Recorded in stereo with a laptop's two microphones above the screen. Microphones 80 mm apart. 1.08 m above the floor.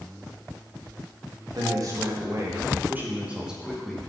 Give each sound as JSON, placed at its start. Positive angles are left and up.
{"t": 1.6, "sound": "a man speaking", "side_deg": -50, "distance_m": 1.5}